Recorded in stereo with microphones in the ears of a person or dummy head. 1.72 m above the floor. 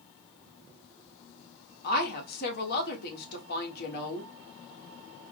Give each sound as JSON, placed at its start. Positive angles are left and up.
{"t": 1.8, "sound": "a woman speaking", "side_deg": 60, "distance_m": 1.4}